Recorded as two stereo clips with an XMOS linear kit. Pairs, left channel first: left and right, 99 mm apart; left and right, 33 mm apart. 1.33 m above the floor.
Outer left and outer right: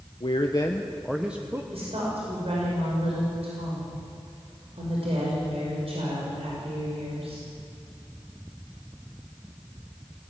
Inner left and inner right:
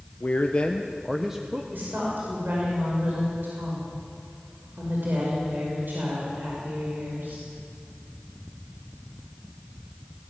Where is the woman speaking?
65° right (ahead or behind), 5.5 m.